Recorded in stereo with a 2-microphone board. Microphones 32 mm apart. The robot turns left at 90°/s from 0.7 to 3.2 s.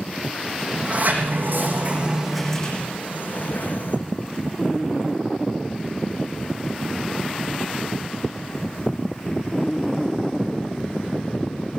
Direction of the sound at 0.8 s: 35° right.